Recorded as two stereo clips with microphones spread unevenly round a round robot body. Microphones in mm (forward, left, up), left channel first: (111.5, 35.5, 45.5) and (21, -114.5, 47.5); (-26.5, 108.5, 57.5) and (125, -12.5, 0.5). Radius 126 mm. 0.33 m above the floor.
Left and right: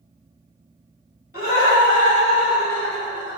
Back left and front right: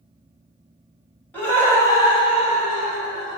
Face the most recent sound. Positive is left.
turn(degrees=180)